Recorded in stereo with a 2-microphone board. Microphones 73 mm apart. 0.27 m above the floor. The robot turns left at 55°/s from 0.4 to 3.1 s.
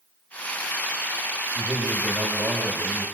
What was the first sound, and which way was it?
A man speaking, 80° right.